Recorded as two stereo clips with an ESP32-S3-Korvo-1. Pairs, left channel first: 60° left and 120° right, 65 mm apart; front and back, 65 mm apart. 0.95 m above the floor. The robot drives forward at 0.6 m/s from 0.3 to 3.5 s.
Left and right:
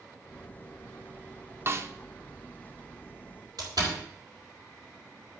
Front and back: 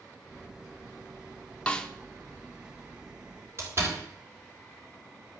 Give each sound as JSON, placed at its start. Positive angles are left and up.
{"t": 1.7, "sound": "a snare drum", "azimuth_deg": -70, "distance_m": 1.0}
{"t": 3.6, "sound": "a door slam", "azimuth_deg": -130, "distance_m": 4.0}